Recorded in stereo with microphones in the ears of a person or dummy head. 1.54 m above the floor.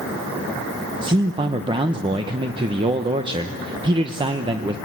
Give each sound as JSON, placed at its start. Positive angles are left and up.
{"t": 1.0, "sound": "a man speaking", "side_deg": -35, "distance_m": 1.0}